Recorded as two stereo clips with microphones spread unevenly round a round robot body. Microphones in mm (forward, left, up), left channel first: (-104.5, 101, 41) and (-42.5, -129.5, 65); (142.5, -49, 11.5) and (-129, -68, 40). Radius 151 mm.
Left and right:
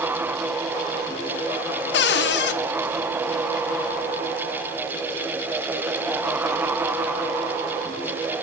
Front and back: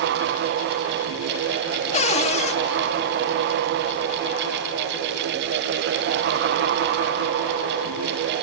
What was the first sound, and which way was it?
A cupboard door, 65° left.